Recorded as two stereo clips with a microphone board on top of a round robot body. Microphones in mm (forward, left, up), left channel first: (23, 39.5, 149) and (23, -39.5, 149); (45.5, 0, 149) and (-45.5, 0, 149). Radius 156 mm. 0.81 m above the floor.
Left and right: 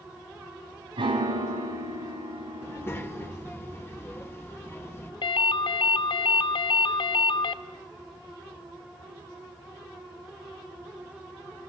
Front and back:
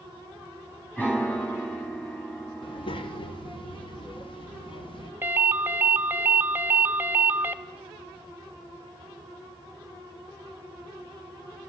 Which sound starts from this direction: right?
A piano, at 1.0 s.